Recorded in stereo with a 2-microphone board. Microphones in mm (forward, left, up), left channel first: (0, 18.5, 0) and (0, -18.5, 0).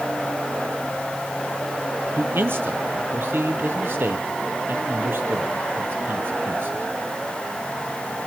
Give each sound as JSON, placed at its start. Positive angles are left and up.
{"t": 2.2, "sound": "a man speaking", "side_deg": -70, "distance_m": 3.5}